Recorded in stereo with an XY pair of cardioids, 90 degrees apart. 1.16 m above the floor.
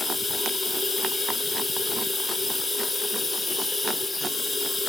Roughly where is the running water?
Ahead left.